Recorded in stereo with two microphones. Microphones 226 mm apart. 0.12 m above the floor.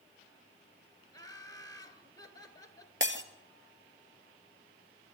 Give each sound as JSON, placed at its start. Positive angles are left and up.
{"t": 1.1, "sound": "laughter", "side_deg": 15, "distance_m": 2.0}
{"t": 3.0, "sound": "breaking glass", "side_deg": -55, "distance_m": 1.5}